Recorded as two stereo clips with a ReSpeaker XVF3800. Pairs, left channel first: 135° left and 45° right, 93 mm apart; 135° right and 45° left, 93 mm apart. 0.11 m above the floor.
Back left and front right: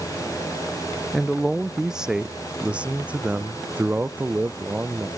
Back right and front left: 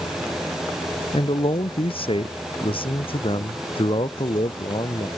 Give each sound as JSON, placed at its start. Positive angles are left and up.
{"t": 1.1, "sound": "a man speaking", "azimuth_deg": -135}